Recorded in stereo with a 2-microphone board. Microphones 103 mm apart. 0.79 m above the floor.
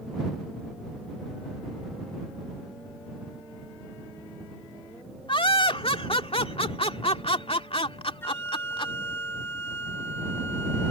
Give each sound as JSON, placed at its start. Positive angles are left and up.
{"t": 5.3, "sound": "laughter", "side_deg": 60}
{"t": 8.2, "sound": "a flute", "side_deg": 25}